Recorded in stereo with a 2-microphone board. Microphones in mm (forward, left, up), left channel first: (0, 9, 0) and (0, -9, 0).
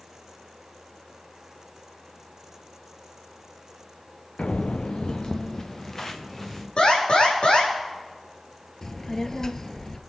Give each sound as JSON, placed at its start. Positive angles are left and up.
{"t": 4.4, "sound": "footsteps", "side_deg": 85, "distance_m": 0.7}
{"t": 6.8, "sound": "an alarm", "side_deg": 70, "distance_m": 5.0}
{"t": 8.8, "sound": "a child speaking", "side_deg": 35, "distance_m": 1.0}